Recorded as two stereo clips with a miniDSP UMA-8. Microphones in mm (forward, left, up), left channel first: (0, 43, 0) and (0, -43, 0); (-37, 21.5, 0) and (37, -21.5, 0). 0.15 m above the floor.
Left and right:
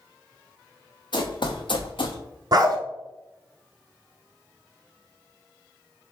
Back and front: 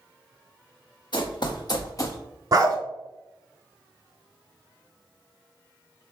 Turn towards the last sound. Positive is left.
turn(degrees=-65)